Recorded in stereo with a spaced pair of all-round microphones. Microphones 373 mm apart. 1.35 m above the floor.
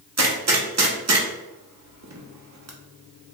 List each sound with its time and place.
0.2 s a gunshot: 45° right (ahead or behind), 0.6 m